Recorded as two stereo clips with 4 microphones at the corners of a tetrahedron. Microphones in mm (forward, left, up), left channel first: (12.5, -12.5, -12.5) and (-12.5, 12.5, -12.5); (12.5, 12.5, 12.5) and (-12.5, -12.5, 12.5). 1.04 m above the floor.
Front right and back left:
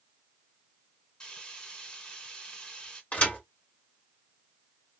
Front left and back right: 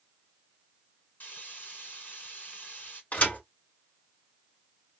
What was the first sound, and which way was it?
Frying, 15° left.